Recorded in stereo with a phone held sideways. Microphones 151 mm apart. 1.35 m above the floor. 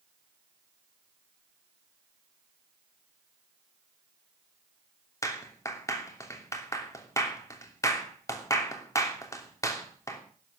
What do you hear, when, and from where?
5.2 s a clap: 20° left (ahead or behind), 3 m